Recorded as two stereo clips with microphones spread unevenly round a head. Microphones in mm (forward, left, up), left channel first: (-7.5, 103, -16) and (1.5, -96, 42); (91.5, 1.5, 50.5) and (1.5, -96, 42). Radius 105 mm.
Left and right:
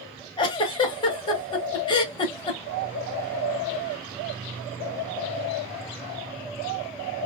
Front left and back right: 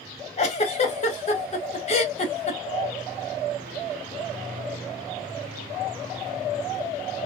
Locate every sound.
0.4 s a giggle: 55° left, 0.7 m